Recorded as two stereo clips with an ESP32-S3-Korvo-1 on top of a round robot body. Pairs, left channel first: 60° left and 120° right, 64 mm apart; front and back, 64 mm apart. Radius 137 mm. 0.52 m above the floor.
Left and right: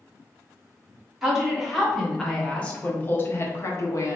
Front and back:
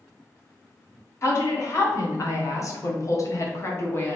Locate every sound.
1.2 s a woman speaking: 40° right, 2.0 m; by 4.2 s 50° left, 1.4 m